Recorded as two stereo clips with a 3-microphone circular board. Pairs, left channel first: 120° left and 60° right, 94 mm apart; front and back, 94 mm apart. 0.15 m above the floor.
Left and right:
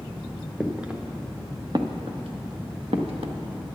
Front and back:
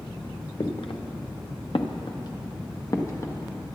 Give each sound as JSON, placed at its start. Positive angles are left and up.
{"t": 0.6, "sound": "footsteps", "azimuth_deg": 25, "distance_m": 1.4}